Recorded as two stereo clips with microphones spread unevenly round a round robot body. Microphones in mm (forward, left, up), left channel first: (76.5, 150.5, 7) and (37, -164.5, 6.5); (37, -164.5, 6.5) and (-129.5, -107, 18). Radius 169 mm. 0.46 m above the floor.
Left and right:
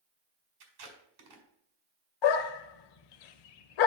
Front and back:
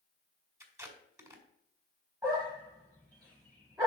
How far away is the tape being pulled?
About 2 m.